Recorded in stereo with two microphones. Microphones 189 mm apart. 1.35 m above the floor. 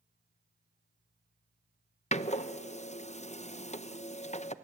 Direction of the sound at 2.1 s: 35° left (ahead or behind).